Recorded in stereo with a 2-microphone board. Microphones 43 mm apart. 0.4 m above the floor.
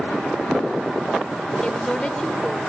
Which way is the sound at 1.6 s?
20° left (ahead or behind).